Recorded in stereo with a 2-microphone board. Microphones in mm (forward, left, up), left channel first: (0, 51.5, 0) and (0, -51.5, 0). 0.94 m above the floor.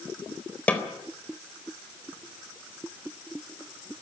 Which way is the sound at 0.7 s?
15° left (ahead or behind).